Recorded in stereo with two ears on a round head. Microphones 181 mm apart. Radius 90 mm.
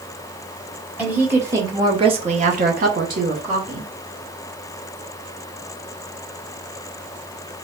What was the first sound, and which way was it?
A woman speaking, 10° right (ahead or behind).